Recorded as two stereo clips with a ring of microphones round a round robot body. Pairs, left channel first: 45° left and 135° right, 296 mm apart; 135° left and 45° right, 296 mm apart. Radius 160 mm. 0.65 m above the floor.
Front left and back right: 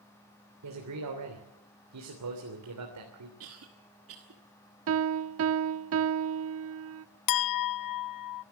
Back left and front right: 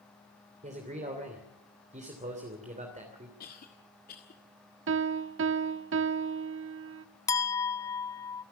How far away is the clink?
About 0.7 m.